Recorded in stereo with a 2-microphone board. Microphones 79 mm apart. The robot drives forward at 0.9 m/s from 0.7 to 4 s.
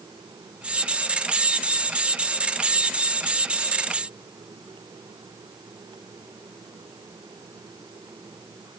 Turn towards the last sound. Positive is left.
No sound to turn to.